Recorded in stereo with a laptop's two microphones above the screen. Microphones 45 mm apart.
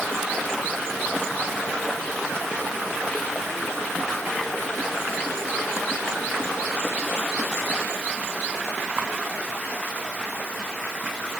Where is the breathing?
No breathing in this recording.